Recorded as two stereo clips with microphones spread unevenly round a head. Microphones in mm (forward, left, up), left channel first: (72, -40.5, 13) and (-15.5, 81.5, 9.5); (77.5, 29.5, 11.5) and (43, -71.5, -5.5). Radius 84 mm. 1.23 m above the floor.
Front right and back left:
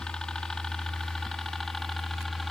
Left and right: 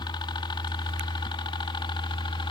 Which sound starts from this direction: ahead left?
A helicopter, at 0.0 s.